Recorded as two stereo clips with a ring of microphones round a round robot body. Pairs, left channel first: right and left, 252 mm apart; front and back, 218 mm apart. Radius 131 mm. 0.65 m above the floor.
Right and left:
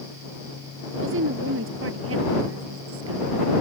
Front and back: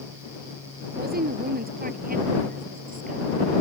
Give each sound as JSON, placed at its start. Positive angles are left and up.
{"t": 0.9, "sound": "a woman speaking", "azimuth_deg": 135}